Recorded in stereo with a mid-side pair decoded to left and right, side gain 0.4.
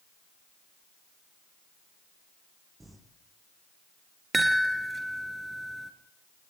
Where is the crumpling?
15° right, 8 m.